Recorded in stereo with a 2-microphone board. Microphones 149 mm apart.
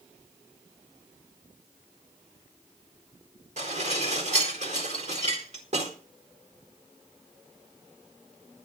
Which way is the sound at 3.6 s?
50° right (ahead or behind).